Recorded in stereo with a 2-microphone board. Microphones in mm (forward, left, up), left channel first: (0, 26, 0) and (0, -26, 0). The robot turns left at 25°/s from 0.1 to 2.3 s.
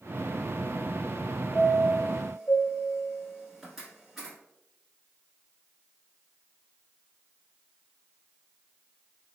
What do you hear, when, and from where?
1.5 s a chime: 10° left (ahead or behind), 1.3 m; by 4.3 s 10° right (ahead or behind), 1.3 m